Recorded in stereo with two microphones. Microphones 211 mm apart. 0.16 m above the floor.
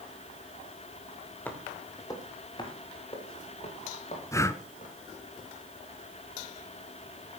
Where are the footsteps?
10° left (ahead or behind), 4 m; by 4.9 s 40° left (ahead or behind), 6.5 m.